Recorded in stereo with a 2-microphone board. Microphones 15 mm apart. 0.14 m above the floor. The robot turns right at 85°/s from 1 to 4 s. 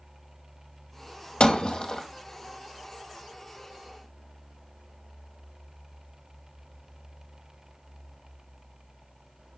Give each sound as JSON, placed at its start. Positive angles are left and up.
{"t": 1.4, "sound": "breaking glass", "azimuth_deg": 100, "distance_m": 2.5}